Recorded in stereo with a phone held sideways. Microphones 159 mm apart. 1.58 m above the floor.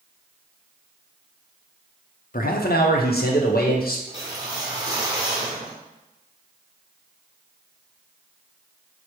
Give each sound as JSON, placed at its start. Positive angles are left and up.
{"t": 2.3, "sound": "a man speaking", "side_deg": 60, "distance_m": 0.5}
{"t": 4.1, "sound": "a whoosh", "side_deg": -25, "distance_m": 1.6}